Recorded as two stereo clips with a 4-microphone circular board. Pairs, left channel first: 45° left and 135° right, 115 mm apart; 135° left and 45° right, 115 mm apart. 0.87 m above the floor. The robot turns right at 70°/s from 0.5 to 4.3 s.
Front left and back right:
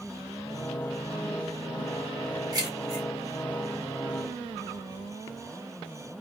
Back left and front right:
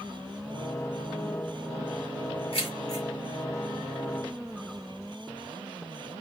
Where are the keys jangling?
165° left, 1.4 m; by 3.0 s 155° right, 1.4 m.